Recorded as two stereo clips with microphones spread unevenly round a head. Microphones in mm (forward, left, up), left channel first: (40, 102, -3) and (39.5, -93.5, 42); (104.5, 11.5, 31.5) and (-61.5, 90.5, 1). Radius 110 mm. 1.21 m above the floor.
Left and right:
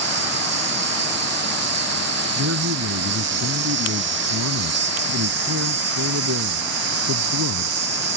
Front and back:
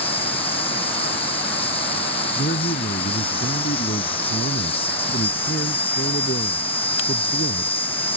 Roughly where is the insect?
Right.